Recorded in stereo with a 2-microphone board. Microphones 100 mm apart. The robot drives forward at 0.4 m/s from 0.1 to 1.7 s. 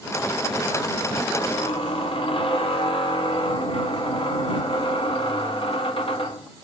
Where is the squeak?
70° left (ahead or behind), 1.0 m; by 6.5 s 65° left (ahead or behind), 1.0 m.